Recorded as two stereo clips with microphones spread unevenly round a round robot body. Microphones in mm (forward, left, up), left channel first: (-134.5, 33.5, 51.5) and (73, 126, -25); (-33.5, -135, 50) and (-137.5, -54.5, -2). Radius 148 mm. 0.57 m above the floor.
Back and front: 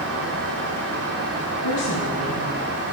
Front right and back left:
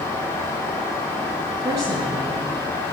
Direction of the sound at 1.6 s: 160° right.